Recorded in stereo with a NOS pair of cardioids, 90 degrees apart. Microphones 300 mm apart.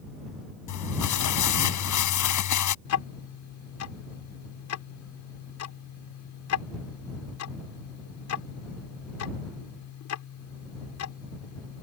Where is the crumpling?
65° left.